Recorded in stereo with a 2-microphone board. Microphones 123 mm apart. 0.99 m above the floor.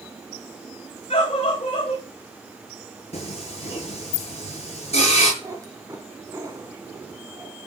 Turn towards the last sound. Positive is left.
turn(degrees=-25)  # may be behind; listen again after turning